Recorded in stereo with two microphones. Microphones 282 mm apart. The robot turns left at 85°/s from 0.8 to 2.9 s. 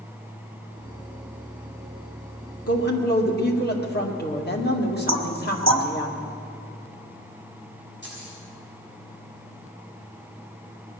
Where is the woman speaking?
55° left (ahead or behind), 1.9 m; by 6.1 s 35° left (ahead or behind), 1.9 m.